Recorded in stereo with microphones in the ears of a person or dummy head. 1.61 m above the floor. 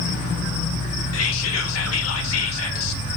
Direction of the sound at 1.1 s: 85° left.